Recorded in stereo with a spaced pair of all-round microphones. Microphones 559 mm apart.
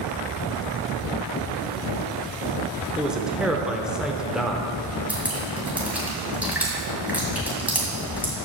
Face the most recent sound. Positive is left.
turn(degrees=-5)  # may be behind; listen again after turning